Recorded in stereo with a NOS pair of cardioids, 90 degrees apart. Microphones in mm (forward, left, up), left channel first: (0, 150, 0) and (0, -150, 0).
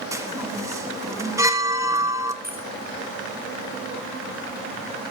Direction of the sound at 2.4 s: 30° right.